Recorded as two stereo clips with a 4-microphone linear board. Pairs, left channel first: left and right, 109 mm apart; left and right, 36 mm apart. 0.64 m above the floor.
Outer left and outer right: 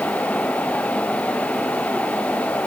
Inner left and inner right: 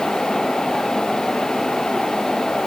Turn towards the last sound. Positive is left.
No sound to turn to.